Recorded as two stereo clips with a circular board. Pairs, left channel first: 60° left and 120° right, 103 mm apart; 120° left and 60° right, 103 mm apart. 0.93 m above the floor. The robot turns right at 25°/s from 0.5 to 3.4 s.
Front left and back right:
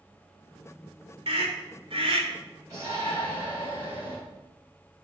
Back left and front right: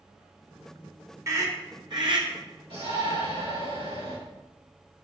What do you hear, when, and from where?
1.3 s a scream: 115° right, 2.5 m; by 2.3 s 90° right, 2.5 m
2.7 s a shout: 70° right, 5 m; by 4.2 s 50° right, 5 m